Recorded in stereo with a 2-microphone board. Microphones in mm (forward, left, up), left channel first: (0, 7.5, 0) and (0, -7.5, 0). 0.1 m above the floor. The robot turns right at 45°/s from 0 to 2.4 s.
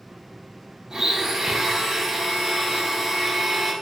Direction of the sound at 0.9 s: 115° right.